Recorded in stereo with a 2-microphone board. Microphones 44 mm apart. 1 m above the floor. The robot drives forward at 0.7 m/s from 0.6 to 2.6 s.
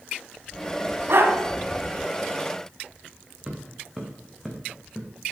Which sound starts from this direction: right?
A dog barking, at 1.1 s.